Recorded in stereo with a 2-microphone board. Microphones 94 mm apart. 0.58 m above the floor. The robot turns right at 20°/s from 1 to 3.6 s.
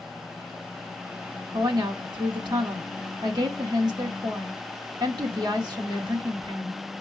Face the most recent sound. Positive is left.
turn(degrees=-70)